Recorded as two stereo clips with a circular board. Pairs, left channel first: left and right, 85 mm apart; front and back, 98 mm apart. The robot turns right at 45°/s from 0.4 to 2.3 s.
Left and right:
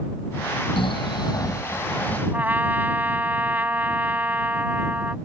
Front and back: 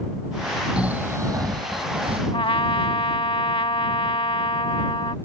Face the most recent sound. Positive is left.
turn(degrees=-20)